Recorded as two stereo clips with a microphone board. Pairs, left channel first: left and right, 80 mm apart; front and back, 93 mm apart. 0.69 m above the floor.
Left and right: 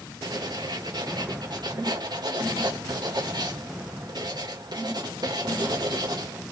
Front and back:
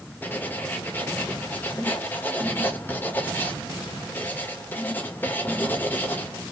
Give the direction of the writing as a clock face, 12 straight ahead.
2 o'clock.